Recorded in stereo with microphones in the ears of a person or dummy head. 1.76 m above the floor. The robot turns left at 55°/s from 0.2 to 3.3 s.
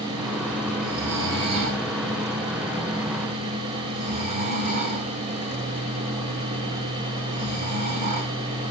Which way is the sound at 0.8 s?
Centre (ahead or behind).